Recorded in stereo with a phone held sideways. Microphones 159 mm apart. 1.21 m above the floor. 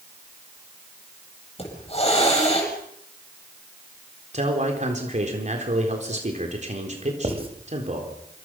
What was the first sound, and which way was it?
A hiss, 40° left (ahead or behind).